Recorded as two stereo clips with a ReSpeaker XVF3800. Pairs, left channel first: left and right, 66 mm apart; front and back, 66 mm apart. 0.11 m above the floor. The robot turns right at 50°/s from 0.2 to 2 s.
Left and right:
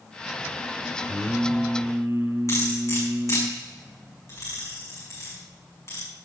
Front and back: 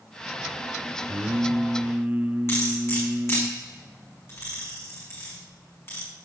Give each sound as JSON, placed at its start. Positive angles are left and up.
{"t": 1.1, "sound": "singing", "azimuth_deg": -165, "distance_m": 1.1}
{"t": 2.5, "sound": "cutlery clinking", "azimuth_deg": 50, "distance_m": 5.5}